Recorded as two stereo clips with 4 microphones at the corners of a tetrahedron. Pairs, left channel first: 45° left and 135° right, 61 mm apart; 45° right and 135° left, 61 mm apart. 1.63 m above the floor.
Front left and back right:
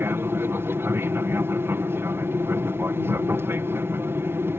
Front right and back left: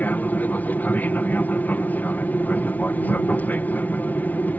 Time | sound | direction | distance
0.0 | an aircraft | 100° right | ?